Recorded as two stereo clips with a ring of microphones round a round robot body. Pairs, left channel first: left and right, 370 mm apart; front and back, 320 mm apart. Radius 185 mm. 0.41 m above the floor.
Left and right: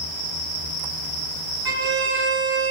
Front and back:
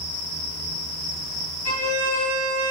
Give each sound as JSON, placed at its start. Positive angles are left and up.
{"t": 1.6, "sound": "a violin", "azimuth_deg": -130, "distance_m": 1.4}